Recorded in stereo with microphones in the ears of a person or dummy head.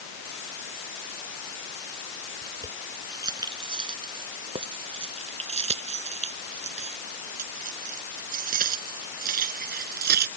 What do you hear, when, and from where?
2.4 s keys jangling: 20° right (ahead or behind); by 10.3 s 50° right (ahead or behind)